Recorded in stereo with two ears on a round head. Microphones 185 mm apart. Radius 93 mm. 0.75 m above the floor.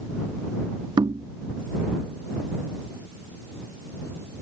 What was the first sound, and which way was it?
Knocking, 20° right (ahead or behind).